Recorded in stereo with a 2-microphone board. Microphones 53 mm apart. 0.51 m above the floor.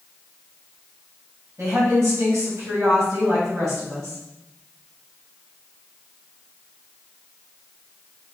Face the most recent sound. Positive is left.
turn(degrees=-65)  # may be behind; listen again after turning